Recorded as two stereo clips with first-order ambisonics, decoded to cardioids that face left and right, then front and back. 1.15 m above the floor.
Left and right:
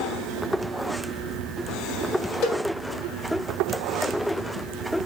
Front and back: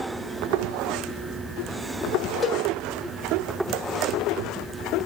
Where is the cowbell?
90° left, 0.8 m.